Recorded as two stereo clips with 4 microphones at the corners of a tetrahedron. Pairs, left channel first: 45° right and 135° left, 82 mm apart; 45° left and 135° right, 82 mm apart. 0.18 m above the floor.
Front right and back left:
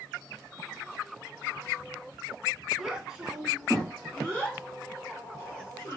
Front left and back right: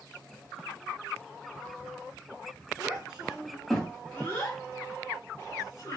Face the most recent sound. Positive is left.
turn(degrees=5)